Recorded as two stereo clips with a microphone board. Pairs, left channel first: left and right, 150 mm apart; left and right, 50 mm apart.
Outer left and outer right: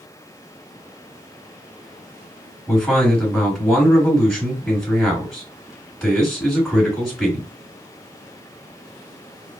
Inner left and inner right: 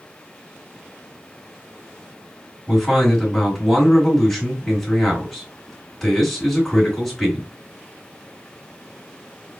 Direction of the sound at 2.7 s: 10° left (ahead or behind).